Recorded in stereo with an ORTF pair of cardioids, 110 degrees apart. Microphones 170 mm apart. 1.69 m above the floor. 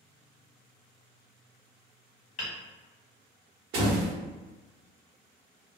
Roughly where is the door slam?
Ahead right.